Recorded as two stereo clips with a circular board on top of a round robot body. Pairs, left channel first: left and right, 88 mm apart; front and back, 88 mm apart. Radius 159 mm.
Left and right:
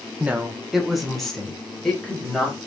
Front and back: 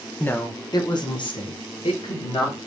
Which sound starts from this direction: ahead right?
A woman speaking, at 0.2 s.